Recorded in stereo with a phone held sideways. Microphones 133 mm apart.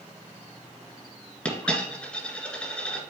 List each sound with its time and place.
1.4 s a dropped coin: 10° left (ahead or behind), 1.9 m